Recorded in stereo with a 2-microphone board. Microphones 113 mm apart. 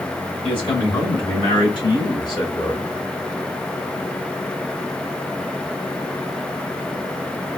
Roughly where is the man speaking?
Left.